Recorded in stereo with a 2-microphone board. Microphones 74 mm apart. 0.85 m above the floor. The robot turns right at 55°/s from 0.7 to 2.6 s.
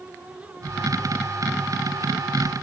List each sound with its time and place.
Only background noise.